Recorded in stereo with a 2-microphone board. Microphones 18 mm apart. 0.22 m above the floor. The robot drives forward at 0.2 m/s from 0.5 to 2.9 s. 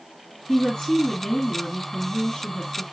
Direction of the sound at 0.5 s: 65° left (ahead or behind).